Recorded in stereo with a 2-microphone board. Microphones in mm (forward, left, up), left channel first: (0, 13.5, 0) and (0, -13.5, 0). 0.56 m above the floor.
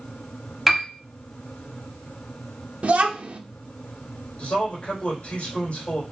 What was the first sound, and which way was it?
A piano, centre (ahead or behind).